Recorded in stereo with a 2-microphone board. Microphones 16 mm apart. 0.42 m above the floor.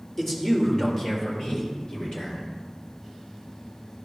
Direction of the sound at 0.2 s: 15° left (ahead or behind).